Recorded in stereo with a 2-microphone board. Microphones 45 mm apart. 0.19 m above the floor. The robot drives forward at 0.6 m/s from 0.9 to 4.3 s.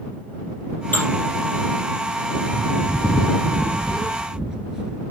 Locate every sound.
0.9 s dishes clattering: 40° left (ahead or behind), 3.5 m
2.5 s a bird: 35° right (ahead or behind), 0.6 m; by 5.0 s 15° right (ahead or behind), 1.4 m